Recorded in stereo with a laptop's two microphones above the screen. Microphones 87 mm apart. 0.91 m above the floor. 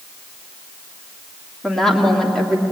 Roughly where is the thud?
I don't hear a thud.